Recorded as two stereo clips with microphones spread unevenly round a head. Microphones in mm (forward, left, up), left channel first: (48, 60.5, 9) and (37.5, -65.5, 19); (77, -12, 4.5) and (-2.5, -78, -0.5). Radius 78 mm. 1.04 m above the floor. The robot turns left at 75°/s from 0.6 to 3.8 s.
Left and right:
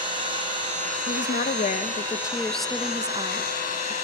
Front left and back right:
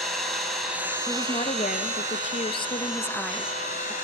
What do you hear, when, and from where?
0.0 s an engine running: 50° right, 7.5 m; by 4.0 s 70° left, 7.5 m
1.1 s a woman speaking: 115° left, 1.3 m; by 4.0 s 90° right, 1.3 m